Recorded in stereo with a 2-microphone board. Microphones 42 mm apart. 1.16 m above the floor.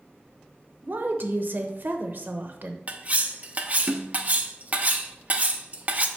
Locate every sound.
0.8 s a woman speaking: 55° right (ahead or behind), 0.8 m
2.9 s cutlery clinking: 40° right (ahead or behind), 0.6 m